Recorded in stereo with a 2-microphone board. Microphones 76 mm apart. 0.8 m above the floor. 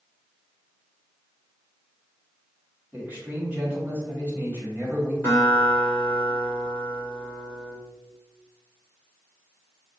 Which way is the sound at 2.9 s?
25° right (ahead or behind).